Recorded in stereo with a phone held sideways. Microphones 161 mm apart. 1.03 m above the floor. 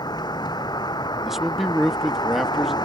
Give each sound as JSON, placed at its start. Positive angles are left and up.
{"t": 0.0, "sound": "a vehicle", "side_deg": 25}
{"t": 1.2, "sound": "a man speaking", "side_deg": 0}